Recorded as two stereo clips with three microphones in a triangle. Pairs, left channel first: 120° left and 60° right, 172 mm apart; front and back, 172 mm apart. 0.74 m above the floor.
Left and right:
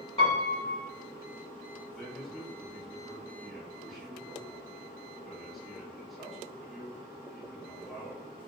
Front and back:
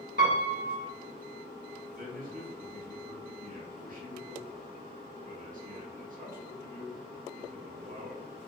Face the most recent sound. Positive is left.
turn(degrees=-150)